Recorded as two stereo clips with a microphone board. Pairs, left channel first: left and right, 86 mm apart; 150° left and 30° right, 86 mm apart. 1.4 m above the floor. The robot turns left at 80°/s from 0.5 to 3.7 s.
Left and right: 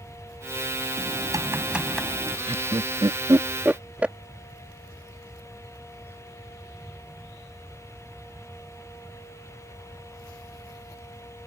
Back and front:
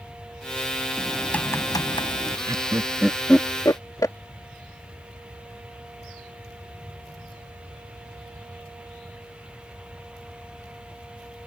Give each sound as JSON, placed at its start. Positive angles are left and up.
{"t": 1.0, "sound": "typing on a keyboard", "azimuth_deg": -105}
{"t": 2.5, "sound": "laughter", "azimuth_deg": -65}